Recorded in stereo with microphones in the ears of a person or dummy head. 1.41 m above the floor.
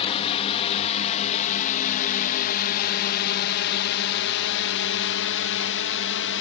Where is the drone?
30° left (ahead or behind); by 6.4 s 60° left (ahead or behind).